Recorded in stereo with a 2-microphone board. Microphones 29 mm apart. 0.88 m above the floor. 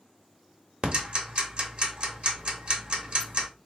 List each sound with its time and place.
0.8 s ticking: 50° right (ahead or behind), 0.9 m